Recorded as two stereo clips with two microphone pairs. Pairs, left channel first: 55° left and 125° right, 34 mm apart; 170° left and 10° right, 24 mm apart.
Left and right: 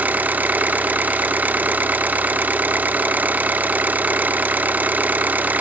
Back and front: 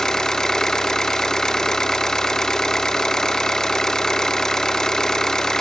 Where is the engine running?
130° right, 0.8 m.